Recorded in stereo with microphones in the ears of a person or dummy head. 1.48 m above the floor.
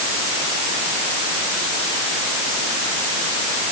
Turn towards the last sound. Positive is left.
No sound to turn to.